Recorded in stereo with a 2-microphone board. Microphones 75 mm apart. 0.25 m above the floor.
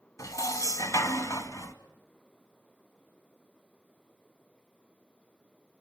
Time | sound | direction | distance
0.2 | dishes clattering | 45° left (ahead or behind) | 1.4 m